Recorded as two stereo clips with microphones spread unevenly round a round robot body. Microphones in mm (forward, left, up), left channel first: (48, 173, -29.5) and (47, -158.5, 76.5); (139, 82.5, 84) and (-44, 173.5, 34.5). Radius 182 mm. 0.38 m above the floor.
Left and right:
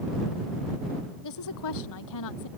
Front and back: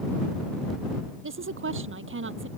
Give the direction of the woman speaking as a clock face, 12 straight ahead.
8 o'clock.